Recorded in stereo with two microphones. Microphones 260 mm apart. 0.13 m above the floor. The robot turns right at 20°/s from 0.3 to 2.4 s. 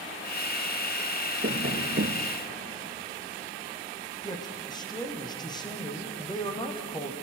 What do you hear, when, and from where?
1.4 s tapping: 45° right (ahead or behind), 1.6 m; by 2.3 s 55° right (ahead or behind), 1.6 m
4.2 s a man speaking: 15° left (ahead or behind), 5.5 m